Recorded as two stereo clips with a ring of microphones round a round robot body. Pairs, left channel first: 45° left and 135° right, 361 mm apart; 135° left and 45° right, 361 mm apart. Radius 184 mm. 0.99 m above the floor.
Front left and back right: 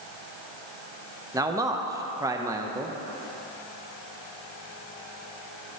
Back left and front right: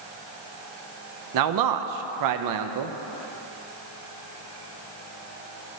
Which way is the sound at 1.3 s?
55° right.